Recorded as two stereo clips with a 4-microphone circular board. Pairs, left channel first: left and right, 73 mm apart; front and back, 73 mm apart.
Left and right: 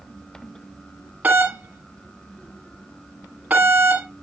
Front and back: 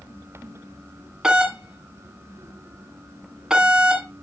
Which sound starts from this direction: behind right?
A doorbell, at 1.2 s.